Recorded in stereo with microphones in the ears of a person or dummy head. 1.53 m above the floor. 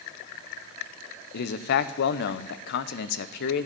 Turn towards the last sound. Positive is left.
turn(degrees=65)  # may be behind; listen again after turning